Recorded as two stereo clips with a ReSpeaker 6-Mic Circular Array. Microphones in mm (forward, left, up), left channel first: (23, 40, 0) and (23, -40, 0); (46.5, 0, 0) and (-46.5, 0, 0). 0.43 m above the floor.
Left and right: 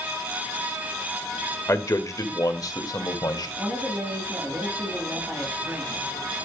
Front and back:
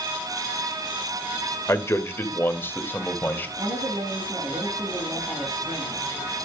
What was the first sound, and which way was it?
A man speaking, 50° left.